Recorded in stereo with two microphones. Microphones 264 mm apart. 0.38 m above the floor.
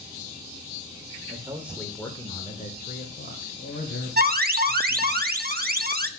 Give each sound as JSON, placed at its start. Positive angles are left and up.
{"t": 1.3, "sound": "a man speaking", "side_deg": -20, "distance_m": 1.1}
{"t": 4.2, "sound": "an alarm", "side_deg": -35, "distance_m": 0.7}